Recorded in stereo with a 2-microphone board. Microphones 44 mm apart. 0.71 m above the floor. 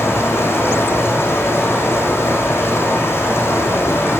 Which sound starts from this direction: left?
Running water, at 0.0 s.